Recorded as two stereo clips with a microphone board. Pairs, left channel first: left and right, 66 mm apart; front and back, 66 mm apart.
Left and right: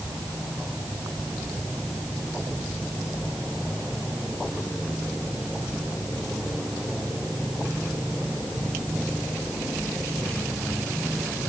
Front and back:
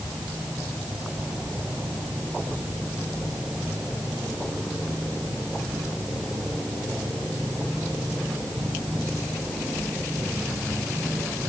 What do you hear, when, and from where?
Only background noise.